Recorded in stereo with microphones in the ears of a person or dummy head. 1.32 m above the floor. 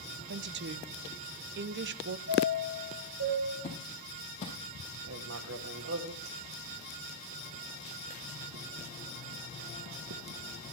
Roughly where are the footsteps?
Left.